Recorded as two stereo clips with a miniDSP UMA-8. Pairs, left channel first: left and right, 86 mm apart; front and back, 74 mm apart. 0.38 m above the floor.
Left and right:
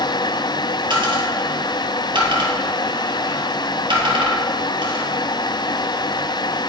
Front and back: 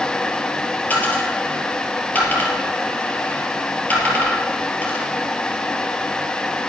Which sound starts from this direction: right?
A dropped coin, at 0.9 s.